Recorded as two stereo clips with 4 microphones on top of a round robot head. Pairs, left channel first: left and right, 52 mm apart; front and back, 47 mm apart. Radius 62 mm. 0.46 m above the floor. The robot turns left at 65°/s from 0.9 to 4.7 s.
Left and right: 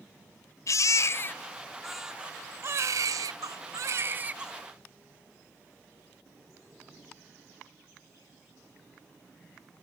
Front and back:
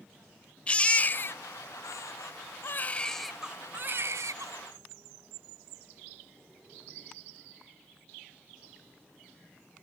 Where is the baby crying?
65° left; by 4.5 s 170° right.